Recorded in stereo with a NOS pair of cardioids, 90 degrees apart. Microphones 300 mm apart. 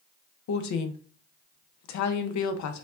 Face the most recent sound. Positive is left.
turn(degrees=65)